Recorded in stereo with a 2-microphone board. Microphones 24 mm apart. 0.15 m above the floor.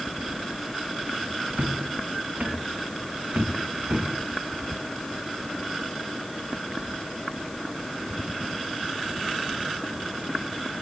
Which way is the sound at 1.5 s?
70° right (ahead or behind).